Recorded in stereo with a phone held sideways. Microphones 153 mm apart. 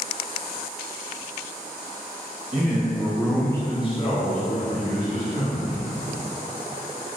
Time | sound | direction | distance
2.5 | a man speaking | 35° right (ahead or behind) | 0.7 m